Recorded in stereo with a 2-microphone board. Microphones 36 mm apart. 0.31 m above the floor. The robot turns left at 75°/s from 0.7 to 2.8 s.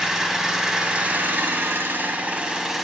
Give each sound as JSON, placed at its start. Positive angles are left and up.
{"t": 0.0, "sound": "an engine running", "azimuth_deg": -15, "distance_m": 0.7}